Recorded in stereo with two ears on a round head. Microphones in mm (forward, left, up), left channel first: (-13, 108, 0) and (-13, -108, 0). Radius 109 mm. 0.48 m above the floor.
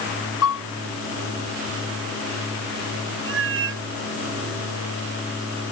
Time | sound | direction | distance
0.4 | a piano | 60° left (ahead or behind) | ?
3.2 | a cat meowing | 50° right (ahead or behind) | ?